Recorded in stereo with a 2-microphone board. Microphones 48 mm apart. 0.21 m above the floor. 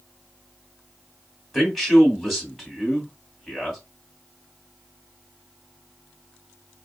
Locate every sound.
1.5 s a man speaking: 5° left (ahead or behind), 1.7 m